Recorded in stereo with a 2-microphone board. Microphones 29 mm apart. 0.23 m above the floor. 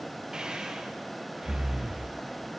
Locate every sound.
0.3 s breathing: 25° right (ahead or behind), 5 m